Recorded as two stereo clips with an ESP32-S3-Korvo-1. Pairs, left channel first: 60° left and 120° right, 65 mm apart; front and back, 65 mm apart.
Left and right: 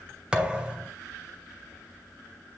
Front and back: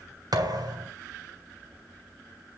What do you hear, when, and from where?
0.3 s a thud: 165° left, 2.5 m